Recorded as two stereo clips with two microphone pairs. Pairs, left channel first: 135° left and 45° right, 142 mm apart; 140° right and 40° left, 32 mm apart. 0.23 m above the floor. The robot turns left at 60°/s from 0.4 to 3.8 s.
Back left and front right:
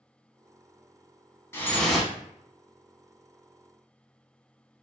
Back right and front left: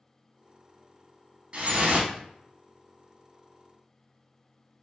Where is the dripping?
70° left, 0.6 m; by 2.1 s 35° left, 0.6 m.